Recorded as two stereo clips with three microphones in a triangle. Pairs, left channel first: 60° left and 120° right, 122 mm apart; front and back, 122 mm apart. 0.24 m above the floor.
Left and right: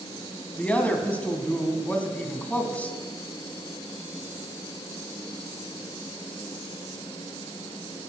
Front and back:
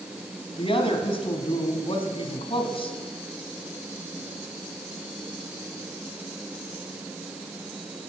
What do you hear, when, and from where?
0.6 s a woman speaking: 15° right, 1.6 m